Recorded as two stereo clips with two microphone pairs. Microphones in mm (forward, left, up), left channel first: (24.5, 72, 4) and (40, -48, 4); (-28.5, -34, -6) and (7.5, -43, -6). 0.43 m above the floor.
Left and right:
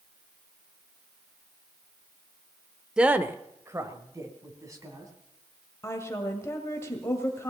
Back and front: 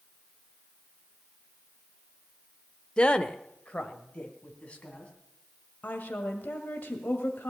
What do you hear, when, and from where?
3.0 s a woman speaking: 160° right, 0.8 m; by 5.1 s 140° right, 3.5 m
5.8 s a woman speaking: 160° left, 2.0 m